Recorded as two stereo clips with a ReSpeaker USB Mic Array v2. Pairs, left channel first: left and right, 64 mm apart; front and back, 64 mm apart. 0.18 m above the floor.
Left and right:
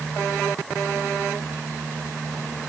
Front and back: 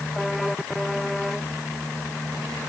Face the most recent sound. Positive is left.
No sound to turn to.